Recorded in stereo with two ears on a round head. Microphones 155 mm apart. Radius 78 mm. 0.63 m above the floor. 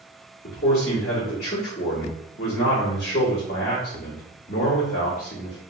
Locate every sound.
0.4 s a man speaking: 55° left (ahead or behind), 1.5 m